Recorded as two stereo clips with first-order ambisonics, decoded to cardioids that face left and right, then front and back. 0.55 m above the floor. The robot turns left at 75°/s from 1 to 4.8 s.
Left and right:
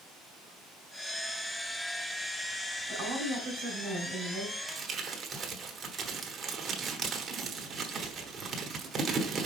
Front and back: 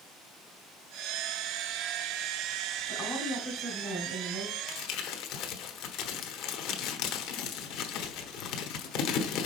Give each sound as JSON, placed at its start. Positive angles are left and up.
{"t": 2.9, "sound": "a woman speaking", "azimuth_deg": -65, "distance_m": 2.5}
{"t": 4.7, "sound": "crumpling", "azimuth_deg": -15, "distance_m": 1.1}